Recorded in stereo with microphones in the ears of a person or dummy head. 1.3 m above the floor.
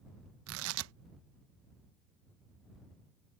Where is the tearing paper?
70° right (ahead or behind).